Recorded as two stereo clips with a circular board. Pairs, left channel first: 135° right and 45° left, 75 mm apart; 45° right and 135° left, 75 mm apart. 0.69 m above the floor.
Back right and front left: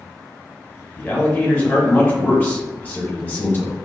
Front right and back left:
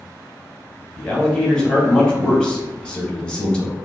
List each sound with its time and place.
1.0 s a man speaking: 105° right, 1.0 m